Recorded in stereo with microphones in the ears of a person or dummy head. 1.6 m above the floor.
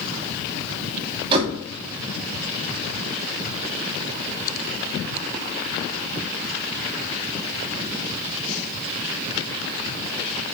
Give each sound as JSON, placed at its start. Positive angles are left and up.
{"t": 1.3, "sound": "a door slam", "side_deg": -30, "distance_m": 2.5}